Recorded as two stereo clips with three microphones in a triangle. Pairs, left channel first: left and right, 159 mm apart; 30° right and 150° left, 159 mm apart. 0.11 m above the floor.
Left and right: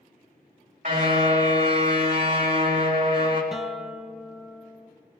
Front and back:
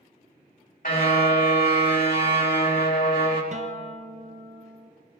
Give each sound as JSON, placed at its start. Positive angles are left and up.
{"t": 0.8, "sound": "a car horn", "azimuth_deg": -60, "distance_m": 4.0}
{"t": 3.5, "sound": "a guitar", "azimuth_deg": -175, "distance_m": 1.2}